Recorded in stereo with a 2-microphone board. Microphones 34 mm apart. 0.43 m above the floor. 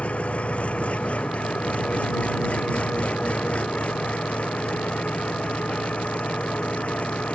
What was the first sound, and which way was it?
An engine running, 45° left (ahead or behind).